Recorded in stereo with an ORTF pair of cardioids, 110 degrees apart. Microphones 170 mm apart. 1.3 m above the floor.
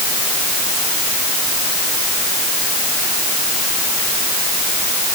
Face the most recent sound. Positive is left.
No sound to turn to.